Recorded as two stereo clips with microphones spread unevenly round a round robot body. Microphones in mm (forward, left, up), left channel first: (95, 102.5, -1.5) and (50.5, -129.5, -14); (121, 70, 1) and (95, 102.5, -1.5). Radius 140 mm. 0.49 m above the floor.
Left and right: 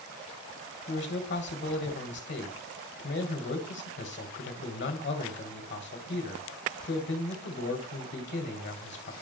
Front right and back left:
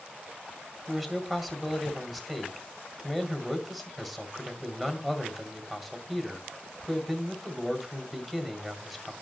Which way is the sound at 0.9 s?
40° left.